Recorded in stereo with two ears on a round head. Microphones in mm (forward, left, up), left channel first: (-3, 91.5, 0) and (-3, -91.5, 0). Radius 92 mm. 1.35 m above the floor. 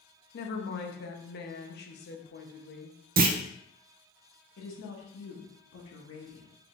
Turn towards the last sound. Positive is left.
turn(degrees=65)  # may be behind; listen again after turning